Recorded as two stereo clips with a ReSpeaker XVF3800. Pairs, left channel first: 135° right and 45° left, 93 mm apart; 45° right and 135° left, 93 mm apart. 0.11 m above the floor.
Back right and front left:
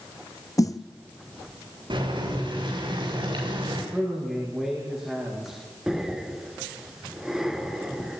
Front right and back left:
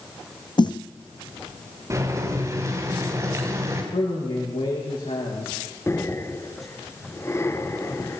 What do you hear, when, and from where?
0.6 s a snare drum: 80° right, 1.1 m
1.9 s boiling: 75° left, 8.5 m
3.9 s a man speaking: 35° right, 7.5 m
5.9 s breathing: 35° right, 1.7 m